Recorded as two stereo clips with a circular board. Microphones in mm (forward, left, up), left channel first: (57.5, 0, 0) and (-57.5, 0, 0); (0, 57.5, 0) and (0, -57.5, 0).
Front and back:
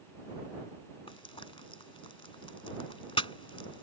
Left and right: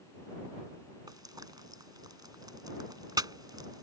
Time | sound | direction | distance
1.1 | frying | 40° right | ?